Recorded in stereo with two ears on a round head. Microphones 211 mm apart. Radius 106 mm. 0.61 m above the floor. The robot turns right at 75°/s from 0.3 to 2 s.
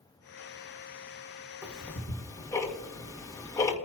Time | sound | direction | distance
1.6 | ticking | 10° right (ahead or behind) | 1.8 m